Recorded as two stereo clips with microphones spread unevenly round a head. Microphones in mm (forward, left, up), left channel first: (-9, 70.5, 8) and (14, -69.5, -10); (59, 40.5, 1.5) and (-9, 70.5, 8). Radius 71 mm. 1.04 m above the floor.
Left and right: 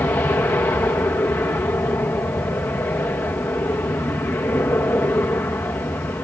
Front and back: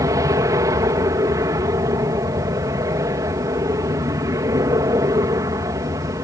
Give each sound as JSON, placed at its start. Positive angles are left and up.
{"t": 0.0, "sound": "an aircraft", "azimuth_deg": 170}